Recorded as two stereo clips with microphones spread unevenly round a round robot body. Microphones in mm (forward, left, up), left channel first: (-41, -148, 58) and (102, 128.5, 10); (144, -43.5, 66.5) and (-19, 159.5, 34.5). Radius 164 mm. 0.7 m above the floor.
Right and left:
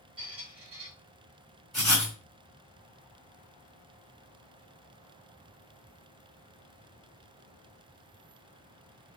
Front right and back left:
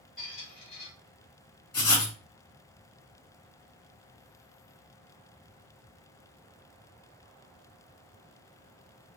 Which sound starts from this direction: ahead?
A squeak, at 0.2 s.